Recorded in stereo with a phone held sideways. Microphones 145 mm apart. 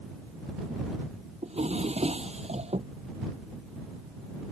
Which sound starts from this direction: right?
A drawer, at 1.4 s.